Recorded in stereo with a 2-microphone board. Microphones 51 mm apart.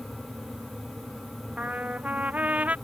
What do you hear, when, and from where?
1.6 s a trumpet: 30° right (ahead or behind)